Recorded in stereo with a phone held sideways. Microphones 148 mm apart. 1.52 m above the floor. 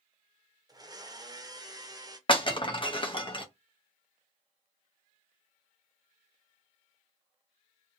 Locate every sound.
0.7 s a blender: 25° right (ahead or behind), 0.6 m
2.3 s breaking glass: 35° left (ahead or behind), 0.7 m